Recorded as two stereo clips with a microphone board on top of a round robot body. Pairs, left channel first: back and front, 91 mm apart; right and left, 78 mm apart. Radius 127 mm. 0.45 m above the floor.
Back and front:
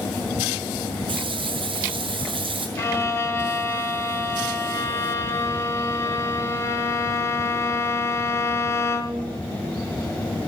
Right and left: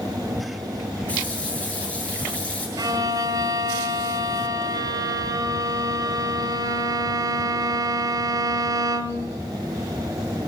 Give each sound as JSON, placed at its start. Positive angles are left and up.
{"t": 1.1, "sound": "a running tap", "azimuth_deg": -15, "distance_m": 5.5}
{"t": 2.8, "sound": "a violin", "azimuth_deg": 120, "distance_m": 2.0}